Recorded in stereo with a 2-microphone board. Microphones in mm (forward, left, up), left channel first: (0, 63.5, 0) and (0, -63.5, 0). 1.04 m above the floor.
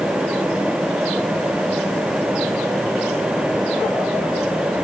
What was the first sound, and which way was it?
Only background noise.